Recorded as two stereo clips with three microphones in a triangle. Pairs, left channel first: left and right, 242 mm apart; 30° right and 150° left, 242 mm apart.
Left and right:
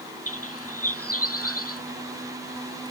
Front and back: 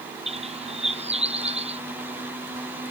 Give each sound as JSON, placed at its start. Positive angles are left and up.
{"t": 0.3, "sound": "a bird", "azimuth_deg": 85}